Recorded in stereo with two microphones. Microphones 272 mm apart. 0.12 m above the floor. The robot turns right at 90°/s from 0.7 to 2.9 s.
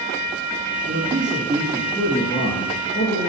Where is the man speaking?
25° right (ahead or behind), 1.5 m; by 3.3 s 25° left (ahead or behind), 1.5 m.